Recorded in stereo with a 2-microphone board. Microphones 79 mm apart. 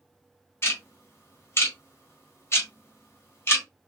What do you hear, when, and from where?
0.6 s ticking: 35° left (ahead or behind), 1.4 m